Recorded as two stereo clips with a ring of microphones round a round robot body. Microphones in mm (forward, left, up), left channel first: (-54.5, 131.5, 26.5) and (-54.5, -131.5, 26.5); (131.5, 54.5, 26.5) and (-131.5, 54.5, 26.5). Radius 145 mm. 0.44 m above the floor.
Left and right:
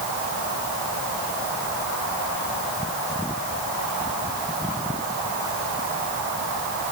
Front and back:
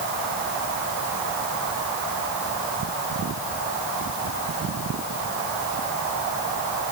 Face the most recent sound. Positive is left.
No sound to turn to.